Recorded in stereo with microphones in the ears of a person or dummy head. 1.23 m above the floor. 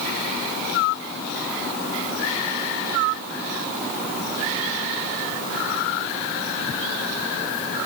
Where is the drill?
No drill in this recording.